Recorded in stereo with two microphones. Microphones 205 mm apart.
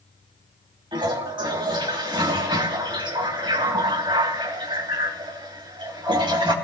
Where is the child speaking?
I don't hear a child speaking.